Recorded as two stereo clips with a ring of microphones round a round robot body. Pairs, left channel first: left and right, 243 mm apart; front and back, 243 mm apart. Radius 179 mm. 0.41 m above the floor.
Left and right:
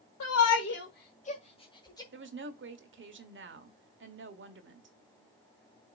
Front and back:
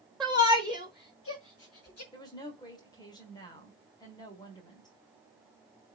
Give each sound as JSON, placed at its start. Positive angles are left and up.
{"t": 0.2, "sound": "a shout", "azimuth_deg": 90, "distance_m": 1.4}
{"t": 2.1, "sound": "a woman speaking", "azimuth_deg": -70, "distance_m": 1.5}